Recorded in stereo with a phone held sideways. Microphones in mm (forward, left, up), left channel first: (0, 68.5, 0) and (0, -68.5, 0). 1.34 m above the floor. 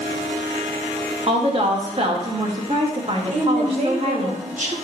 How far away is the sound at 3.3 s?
About 1.7 m.